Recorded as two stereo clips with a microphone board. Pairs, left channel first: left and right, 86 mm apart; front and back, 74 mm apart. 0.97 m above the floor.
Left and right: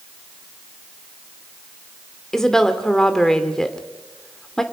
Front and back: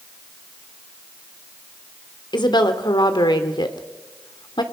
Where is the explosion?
I don't hear an explosion.